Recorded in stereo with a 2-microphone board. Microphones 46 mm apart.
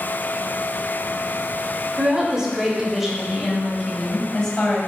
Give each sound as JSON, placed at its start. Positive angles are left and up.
{"t": 2.0, "sound": "a woman speaking", "side_deg": -20, "distance_m": 2.5}